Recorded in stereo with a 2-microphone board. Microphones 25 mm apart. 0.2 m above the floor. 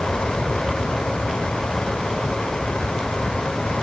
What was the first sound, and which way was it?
Only background noise.